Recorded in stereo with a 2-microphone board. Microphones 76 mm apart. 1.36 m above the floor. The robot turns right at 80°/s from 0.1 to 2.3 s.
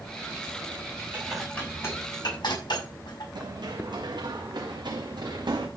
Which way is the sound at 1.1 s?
20° right (ahead or behind).